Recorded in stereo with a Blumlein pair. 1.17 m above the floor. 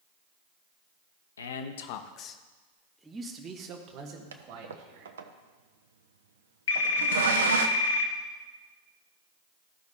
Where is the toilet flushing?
65° right, 0.7 m.